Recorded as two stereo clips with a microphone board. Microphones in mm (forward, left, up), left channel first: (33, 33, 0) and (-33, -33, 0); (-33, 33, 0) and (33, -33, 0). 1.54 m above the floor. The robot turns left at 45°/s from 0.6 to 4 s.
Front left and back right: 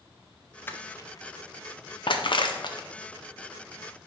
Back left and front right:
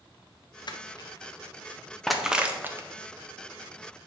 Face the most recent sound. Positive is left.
turn(degrees=-40)